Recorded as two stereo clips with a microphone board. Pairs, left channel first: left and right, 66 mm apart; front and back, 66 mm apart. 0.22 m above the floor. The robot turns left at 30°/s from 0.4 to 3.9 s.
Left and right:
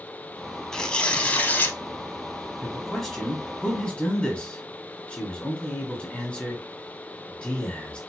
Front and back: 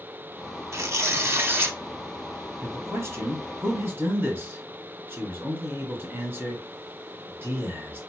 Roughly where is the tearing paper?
Behind.